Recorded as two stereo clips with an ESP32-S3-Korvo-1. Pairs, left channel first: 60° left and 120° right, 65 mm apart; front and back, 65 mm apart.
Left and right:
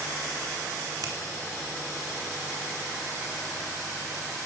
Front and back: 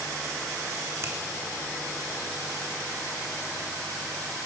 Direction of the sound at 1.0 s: 135° right.